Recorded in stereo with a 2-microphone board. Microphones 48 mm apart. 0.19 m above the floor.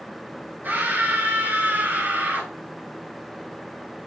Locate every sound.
0.6 s a scream: 40° right (ahead or behind), 4.5 m